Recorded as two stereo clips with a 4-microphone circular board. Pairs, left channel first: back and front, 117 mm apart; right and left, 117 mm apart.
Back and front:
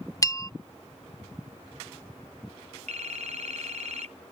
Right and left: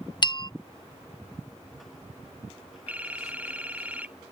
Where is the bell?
125° right.